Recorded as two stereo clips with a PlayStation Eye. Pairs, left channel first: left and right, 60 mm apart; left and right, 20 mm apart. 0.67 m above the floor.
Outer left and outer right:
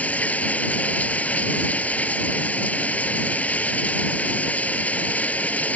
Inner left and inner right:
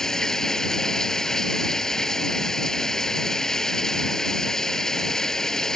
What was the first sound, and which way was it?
Running water, 25° left (ahead or behind).